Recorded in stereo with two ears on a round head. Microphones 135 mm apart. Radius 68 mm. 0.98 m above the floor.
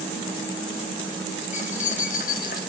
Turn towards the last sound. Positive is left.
turn(degrees=70)  # may be behind; listen again after turning